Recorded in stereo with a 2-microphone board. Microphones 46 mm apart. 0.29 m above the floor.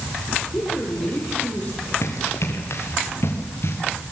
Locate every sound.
0.5 s a woman speaking: 25° left (ahead or behind), 9.5 m; by 1.9 s 30° left (ahead or behind), 9.5 m
2.0 s running footsteps: 70° left (ahead or behind), 4.5 m; by 3.8 s 55° left (ahead or behind), 4.5 m